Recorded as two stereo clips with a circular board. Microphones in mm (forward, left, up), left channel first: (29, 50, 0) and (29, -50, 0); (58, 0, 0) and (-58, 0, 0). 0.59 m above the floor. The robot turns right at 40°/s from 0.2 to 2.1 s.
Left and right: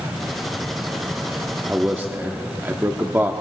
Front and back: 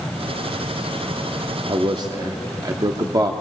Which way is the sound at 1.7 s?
165° right.